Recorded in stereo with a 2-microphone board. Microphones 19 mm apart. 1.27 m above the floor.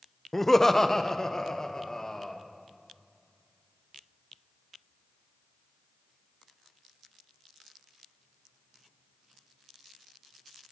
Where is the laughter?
15° left (ahead or behind), 0.6 m; by 2.4 s 35° left (ahead or behind), 1.9 m.